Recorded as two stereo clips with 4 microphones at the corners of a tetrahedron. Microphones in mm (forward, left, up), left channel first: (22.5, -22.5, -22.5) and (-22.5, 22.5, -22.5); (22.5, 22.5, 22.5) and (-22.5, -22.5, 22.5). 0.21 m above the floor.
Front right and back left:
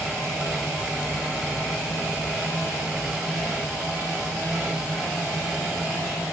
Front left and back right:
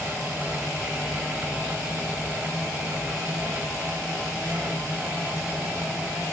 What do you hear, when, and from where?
Only background noise.